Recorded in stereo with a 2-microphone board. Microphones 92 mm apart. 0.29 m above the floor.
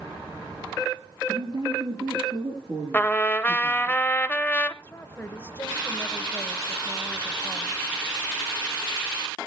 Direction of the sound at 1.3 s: 50° right (ahead or behind).